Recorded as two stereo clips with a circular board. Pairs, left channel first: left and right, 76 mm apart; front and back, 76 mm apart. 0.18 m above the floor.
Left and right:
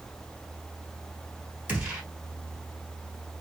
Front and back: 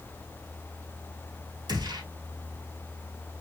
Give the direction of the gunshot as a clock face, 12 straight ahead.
5 o'clock.